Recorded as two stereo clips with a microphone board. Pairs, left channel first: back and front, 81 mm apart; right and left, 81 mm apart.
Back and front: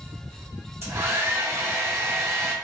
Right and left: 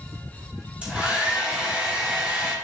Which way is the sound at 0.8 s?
25° left.